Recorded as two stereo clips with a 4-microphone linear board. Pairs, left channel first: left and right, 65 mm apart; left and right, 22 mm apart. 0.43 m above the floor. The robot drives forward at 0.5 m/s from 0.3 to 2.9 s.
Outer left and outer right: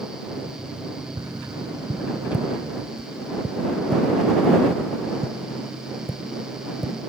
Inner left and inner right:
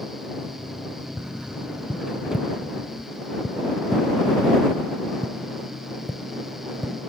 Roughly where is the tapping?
Right.